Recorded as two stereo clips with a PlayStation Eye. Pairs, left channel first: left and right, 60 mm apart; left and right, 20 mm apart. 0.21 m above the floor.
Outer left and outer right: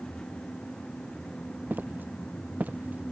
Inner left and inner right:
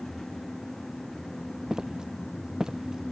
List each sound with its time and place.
1.7 s footsteps: 35° right (ahead or behind); by 3.1 s 25° right (ahead or behind)